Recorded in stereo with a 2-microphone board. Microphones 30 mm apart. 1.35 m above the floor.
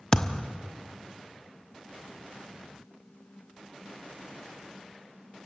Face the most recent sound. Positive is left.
turn(degrees=25)  # may be behind; listen again after turning